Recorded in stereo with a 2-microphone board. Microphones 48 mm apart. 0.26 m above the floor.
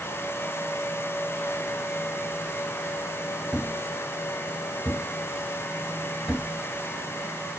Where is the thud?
15° right (ahead or behind), 1.0 m.